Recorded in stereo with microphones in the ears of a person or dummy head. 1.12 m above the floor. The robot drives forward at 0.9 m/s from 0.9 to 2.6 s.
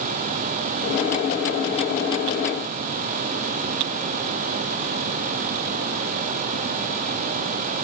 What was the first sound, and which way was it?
Only background noise.